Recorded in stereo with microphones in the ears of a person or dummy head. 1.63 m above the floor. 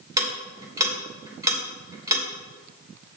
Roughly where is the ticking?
Centre.